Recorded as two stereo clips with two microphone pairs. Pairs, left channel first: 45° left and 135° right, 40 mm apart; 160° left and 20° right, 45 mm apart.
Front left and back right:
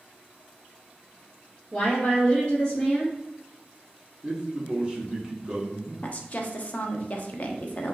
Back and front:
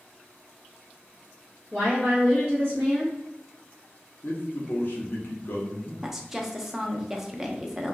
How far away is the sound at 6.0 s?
About 0.6 m.